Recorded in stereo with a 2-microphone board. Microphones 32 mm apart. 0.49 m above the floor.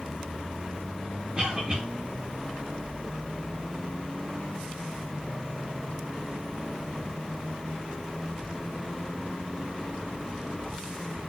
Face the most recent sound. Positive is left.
turn(degrees=-40)  # may be behind; listen again after turning